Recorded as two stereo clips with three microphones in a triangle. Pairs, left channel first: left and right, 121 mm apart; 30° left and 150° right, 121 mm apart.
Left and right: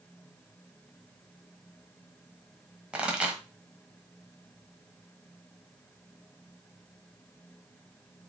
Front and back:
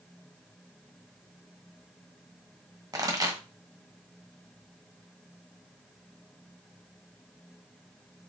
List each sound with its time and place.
2.9 s a pop: 160° right, 1.0 m